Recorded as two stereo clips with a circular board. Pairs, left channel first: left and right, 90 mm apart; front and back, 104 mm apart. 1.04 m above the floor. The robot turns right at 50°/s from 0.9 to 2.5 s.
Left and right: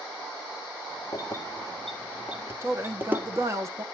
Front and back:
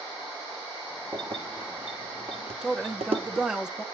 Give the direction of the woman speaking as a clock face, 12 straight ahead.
3 o'clock.